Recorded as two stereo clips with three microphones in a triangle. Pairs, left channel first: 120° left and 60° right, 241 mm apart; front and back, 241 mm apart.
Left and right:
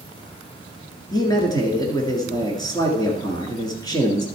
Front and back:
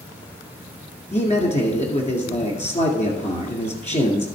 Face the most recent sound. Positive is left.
turn(degrees=50)